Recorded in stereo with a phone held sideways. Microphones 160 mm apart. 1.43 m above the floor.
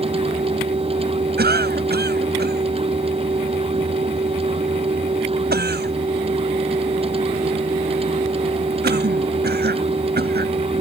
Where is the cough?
85° right.